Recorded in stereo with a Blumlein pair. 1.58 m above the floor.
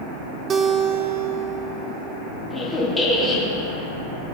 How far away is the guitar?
About 0.6 m.